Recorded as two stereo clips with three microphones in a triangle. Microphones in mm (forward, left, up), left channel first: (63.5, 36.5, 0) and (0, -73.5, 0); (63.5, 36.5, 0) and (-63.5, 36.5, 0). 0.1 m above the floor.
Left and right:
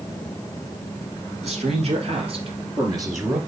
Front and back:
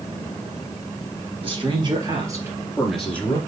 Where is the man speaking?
140° right, 3 m; by 3.4 s 55° right, 1.8 m.